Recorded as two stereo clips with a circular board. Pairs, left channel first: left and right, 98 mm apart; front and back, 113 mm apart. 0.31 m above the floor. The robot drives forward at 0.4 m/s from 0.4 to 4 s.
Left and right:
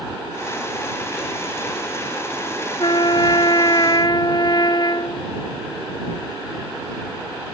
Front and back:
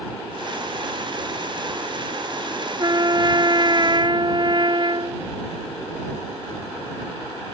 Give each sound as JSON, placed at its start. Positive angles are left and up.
{"t": 2.8, "sound": "a trumpet", "azimuth_deg": 130}